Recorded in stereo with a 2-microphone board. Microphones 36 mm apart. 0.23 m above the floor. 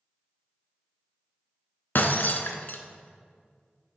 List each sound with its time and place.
1.9 s breaking glass: 60° left (ahead or behind), 0.6 m